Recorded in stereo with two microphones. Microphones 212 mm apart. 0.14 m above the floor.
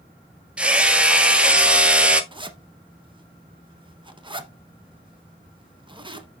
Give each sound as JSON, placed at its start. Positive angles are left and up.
{"t": 0.6, "sound": "hammering", "side_deg": -5, "distance_m": 0.6}
{"t": 2.3, "sound": "a zipper", "side_deg": -20, "distance_m": 0.8}